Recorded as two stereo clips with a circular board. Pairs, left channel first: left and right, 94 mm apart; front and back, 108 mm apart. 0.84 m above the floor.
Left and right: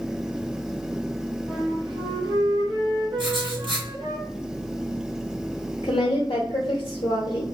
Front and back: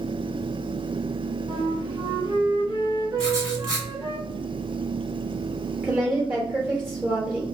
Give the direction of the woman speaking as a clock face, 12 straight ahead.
8 o'clock.